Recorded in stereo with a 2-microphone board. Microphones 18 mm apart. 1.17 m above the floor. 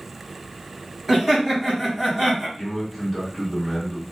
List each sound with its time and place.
1.1 s laughter: centre (ahead or behind), 1.4 m
2.6 s a man speaking: 25° left (ahead or behind), 1.4 m